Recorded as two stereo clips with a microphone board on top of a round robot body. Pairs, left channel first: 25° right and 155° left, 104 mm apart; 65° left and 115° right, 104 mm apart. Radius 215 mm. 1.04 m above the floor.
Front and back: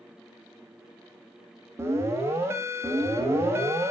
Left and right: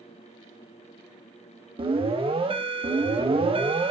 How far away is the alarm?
About 4 m.